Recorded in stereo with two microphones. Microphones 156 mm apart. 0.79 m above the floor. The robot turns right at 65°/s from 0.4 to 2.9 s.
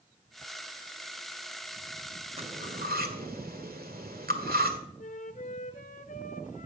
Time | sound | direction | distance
2.4 | cutlery clinking | 40° right (ahead or behind) | 1.8 m
5.0 | a flute | 55° left (ahead or behind) | 1.0 m